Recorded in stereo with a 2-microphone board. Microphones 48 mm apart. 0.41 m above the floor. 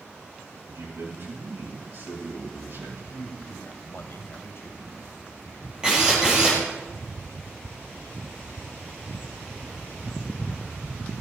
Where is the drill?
15° right (ahead or behind), 4 m.